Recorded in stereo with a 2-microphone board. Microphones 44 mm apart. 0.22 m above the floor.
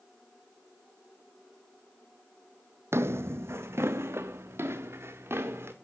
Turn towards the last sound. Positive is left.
turn(degrees=-65)  # may be behind; listen again after turning